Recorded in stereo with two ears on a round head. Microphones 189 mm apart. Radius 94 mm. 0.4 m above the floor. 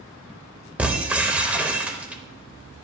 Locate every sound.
0.8 s breaking glass: 5° right (ahead or behind), 0.7 m